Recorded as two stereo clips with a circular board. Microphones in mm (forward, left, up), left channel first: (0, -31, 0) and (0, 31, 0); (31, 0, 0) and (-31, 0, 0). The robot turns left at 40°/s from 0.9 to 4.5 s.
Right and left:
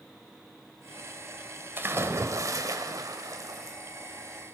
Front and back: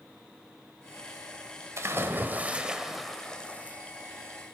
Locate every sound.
1.8 s a splash: 140° left, 1.1 m; by 3.8 s 60° left, 1.1 m